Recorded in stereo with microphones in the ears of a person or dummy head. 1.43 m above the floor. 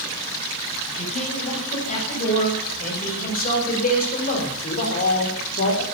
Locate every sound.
1.0 s a man speaking: 40° left (ahead or behind), 8 m; by 5.8 s 55° left (ahead or behind), 3.5 m